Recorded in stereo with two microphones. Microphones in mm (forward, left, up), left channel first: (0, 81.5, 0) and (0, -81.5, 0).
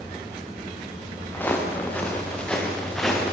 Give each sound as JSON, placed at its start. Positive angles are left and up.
{"t": 1.3, "sound": "footsteps", "side_deg": 10, "distance_m": 7.5}